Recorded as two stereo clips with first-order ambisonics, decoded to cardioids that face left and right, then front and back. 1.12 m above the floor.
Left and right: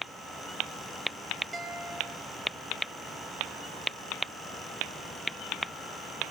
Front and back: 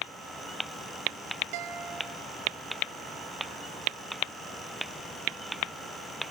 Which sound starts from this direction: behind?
A guitar, at 1.5 s.